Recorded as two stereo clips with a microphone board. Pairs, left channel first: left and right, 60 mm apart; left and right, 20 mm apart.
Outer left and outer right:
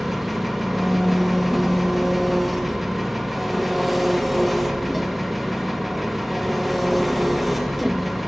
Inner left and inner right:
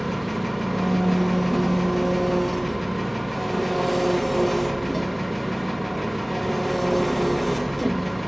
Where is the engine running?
5° right (ahead or behind), 1.7 m.